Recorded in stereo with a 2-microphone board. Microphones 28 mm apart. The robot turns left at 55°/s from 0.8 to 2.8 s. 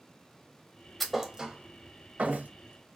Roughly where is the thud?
Centre.